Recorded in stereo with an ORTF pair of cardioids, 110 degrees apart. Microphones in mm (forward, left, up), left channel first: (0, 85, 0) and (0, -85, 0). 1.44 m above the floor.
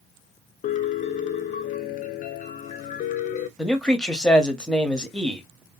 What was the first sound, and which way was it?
A piano, 50° left.